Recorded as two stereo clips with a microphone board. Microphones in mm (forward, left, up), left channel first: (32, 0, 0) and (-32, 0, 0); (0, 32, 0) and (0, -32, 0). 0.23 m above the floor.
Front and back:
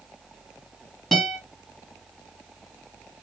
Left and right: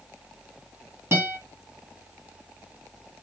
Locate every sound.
1.1 s a guitar: 85° right, 1.3 m